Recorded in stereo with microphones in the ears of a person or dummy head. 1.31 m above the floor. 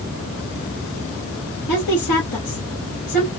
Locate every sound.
1.7 s a woman speaking: 60° left (ahead or behind), 2.5 m